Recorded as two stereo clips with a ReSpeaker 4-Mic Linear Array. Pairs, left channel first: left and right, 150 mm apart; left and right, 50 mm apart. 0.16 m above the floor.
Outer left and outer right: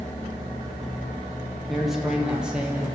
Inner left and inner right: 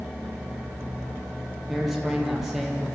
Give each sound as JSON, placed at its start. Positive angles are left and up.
{"t": 1.7, "sound": "a man speaking", "side_deg": 0, "distance_m": 6.0}